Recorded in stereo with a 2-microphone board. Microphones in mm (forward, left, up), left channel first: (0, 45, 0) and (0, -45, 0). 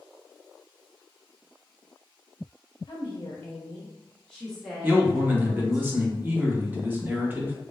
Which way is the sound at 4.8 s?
20° right (ahead or behind).